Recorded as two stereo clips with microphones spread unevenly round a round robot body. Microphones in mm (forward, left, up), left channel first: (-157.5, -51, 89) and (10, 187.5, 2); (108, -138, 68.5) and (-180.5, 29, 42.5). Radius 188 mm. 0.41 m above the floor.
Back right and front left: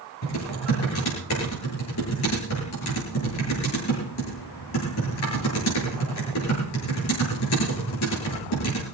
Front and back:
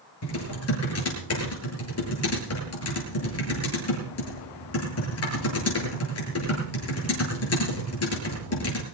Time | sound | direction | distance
0.2 | typing on a keyboard | 75° right | 9 m